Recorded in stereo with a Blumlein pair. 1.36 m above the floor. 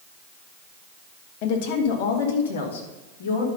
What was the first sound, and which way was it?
A woman speaking, 45° left.